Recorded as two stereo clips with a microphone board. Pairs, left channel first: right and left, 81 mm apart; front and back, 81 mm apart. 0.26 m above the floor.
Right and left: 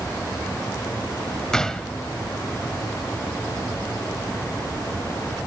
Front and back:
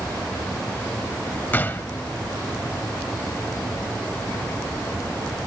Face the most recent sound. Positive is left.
turn(degrees=-20)